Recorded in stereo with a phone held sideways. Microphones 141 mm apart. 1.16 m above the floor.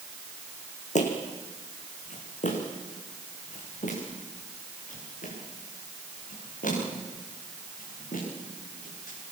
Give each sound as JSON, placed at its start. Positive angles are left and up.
{"t": 0.9, "sound": "footsteps", "side_deg": 60, "distance_m": 3.5}